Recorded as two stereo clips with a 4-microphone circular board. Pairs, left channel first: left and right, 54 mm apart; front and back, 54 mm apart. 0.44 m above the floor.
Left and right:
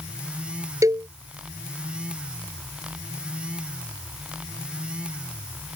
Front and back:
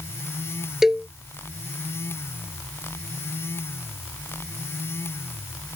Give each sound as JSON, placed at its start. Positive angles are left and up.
{"t": 0.8, "sound": "a cowbell", "azimuth_deg": -95}